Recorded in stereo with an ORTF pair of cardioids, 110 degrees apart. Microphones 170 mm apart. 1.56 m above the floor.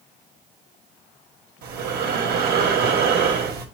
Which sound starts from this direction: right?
Breathing, at 1.6 s.